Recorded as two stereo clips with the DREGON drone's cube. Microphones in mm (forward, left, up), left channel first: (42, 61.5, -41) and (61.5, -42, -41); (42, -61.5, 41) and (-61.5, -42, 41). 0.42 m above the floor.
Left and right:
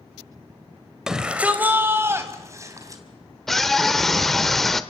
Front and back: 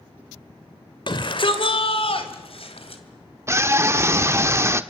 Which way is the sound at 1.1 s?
5° left.